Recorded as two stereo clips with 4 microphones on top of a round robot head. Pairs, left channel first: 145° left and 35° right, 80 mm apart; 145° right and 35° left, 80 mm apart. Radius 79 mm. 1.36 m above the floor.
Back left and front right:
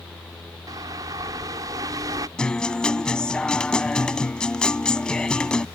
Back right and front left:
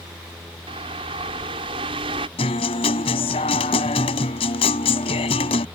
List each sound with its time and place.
0.7 s a bird: 15° left
2.4 s a guitar: 135° right